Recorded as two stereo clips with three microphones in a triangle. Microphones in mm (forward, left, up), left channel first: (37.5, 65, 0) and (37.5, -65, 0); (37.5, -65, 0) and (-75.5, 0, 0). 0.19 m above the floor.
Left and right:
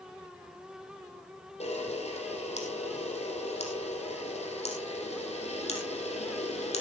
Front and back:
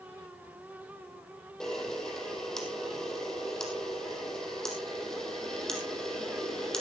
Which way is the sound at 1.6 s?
55° left.